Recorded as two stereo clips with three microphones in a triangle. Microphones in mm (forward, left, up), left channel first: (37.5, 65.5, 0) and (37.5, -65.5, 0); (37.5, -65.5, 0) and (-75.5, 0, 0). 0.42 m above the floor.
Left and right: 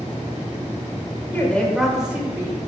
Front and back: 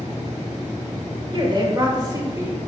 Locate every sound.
1.3 s a woman speaking: 155° left, 1.5 m; by 2.6 s 150° right, 1.7 m